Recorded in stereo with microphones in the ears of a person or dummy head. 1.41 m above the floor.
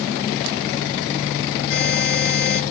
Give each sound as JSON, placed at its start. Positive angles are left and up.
{"t": 1.7, "sound": "a buzzer", "side_deg": 70, "distance_m": 7.5}